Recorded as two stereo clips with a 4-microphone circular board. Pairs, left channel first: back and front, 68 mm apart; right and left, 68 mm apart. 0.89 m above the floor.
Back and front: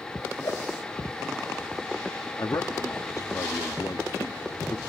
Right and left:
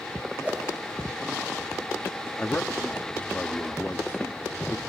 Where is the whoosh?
160° left, 3 m.